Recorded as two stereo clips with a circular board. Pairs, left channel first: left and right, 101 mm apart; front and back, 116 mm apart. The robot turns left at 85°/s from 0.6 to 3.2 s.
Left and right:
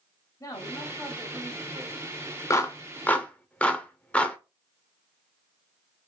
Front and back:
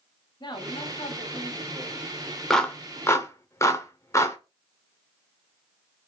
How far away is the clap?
About 0.6 m.